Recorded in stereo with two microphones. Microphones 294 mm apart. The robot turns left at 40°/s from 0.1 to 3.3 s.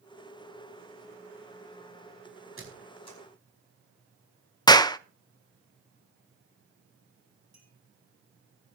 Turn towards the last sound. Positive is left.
turn(degrees=-65)  # may be behind; listen again after turning